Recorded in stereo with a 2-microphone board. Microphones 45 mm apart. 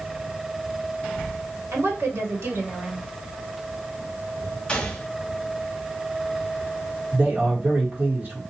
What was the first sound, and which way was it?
A woman speaking, 70° right (ahead or behind).